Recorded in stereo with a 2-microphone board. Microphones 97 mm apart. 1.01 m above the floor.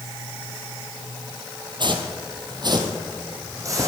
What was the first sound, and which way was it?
Footsteps, 50° right (ahead or behind).